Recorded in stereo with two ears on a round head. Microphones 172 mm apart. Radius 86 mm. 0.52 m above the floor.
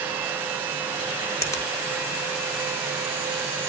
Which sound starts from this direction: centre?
A finger snap, at 1.4 s.